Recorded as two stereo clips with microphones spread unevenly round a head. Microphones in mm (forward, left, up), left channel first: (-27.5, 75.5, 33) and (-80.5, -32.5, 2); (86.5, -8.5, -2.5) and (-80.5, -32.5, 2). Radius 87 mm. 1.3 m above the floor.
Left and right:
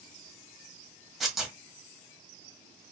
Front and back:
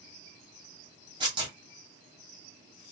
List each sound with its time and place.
1.2 s tearing paper: 140° left, 1.4 m